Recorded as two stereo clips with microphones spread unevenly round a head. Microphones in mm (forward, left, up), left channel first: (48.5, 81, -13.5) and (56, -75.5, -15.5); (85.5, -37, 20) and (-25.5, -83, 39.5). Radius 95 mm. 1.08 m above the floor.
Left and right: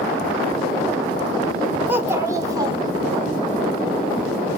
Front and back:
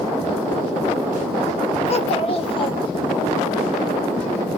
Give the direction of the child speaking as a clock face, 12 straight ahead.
12 o'clock.